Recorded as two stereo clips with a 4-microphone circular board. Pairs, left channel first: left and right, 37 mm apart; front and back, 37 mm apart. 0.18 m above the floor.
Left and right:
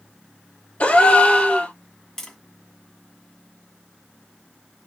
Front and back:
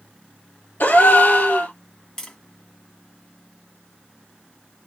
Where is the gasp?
40° left, 1.4 m.